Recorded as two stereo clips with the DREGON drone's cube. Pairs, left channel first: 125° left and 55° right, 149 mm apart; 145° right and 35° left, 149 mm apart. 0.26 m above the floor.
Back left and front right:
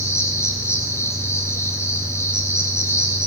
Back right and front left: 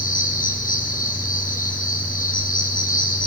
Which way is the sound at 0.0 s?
165° right.